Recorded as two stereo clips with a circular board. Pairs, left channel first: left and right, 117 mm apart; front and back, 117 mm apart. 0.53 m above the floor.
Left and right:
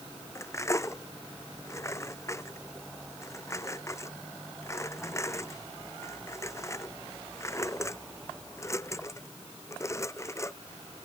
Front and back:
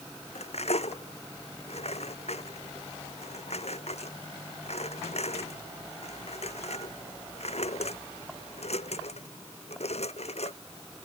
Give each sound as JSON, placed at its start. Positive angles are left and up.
{"t": 0.3, "sound": "cutlery clinking", "azimuth_deg": 25}